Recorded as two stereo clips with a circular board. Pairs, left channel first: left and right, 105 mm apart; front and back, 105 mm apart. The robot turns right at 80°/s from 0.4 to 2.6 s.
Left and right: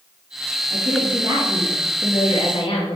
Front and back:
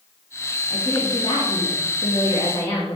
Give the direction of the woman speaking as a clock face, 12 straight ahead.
3 o'clock.